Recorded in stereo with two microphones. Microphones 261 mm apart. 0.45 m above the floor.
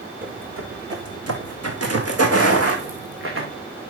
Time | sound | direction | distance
0.2 | footsteps | 50° right (ahead or behind) | 1.6 m